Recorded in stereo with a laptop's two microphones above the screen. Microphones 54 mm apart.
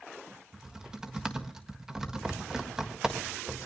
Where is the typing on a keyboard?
10° right (ahead or behind), 1.5 m.